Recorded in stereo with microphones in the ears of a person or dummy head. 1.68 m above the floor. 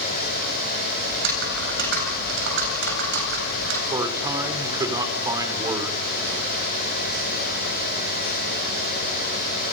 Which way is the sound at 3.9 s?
20° right (ahead or behind).